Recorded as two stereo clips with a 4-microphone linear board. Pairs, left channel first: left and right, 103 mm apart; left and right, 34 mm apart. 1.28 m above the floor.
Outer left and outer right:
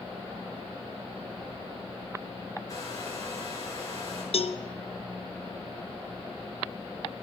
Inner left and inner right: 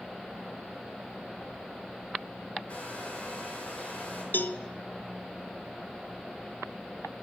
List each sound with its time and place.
2.7 s a hair dryer: 30° left (ahead or behind), 5 m
4.3 s a cowbell: 65° left (ahead or behind), 0.7 m